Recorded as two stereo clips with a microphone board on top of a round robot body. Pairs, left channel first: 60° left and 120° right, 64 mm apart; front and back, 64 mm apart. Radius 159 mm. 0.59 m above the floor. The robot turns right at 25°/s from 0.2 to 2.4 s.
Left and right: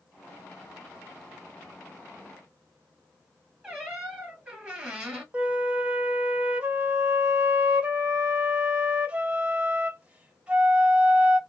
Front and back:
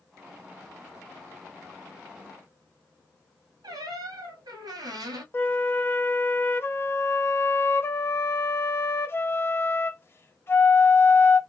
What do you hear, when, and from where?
3.6 s a squeak: 170° left, 0.9 m
5.3 s a flute: 50° right, 1.3 m